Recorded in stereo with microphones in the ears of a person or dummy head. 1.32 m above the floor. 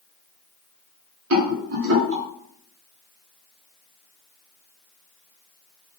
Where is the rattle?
65° right (ahead or behind), 1.1 m.